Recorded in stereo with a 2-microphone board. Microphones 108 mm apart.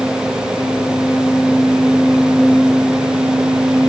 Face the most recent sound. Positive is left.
No sound to turn to.